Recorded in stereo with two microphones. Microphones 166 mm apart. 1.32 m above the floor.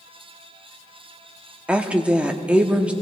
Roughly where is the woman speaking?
Centre.